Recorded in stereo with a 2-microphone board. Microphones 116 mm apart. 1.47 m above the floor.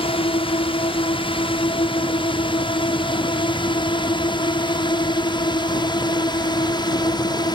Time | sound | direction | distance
0.0 | a drone | 50° left (ahead or behind) | ?